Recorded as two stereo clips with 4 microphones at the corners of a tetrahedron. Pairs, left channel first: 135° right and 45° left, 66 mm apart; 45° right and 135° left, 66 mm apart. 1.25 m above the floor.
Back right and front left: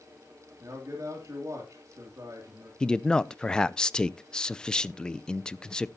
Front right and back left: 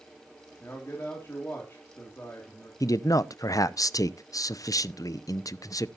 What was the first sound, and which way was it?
A man speaking, 10° left.